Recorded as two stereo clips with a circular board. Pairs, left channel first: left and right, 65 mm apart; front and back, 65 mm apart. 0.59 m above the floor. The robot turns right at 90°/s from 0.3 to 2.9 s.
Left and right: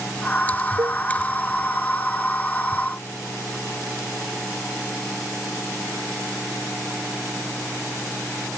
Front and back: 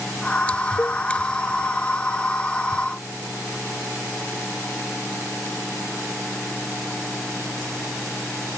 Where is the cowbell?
65° right; by 1.0 s 45° right.